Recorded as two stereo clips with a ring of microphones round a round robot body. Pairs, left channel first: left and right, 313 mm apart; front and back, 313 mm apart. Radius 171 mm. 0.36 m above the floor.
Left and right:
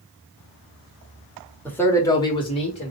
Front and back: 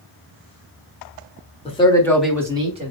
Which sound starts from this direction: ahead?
A man speaking, at 1.6 s.